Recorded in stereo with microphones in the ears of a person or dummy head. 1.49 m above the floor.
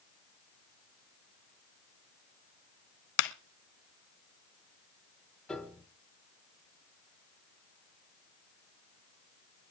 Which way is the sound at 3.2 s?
70° left (ahead or behind).